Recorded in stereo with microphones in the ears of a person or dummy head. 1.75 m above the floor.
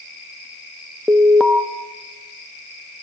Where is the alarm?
5° left (ahead or behind), 0.9 m.